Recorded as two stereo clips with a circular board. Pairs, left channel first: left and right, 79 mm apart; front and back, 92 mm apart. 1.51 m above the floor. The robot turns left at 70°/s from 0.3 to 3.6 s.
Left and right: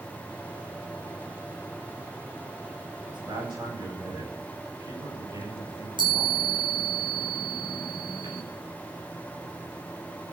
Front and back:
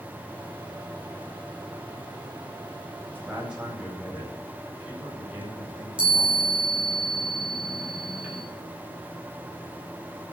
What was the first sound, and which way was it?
A man speaking, 75° right.